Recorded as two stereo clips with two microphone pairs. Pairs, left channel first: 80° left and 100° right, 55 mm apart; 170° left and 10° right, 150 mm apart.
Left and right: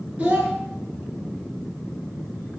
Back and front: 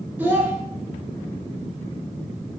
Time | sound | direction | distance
0.2 | a child speaking | 75° right | 0.9 m